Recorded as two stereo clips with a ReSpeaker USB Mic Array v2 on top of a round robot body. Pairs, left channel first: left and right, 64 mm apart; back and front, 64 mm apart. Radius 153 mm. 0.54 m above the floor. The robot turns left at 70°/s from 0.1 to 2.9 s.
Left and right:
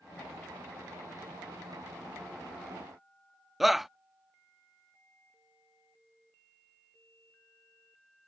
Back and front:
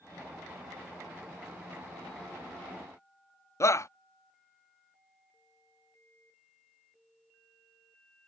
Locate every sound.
3.6 s a shout: 175° right